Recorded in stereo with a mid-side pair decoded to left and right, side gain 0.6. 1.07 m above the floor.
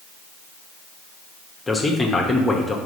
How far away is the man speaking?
About 0.9 m.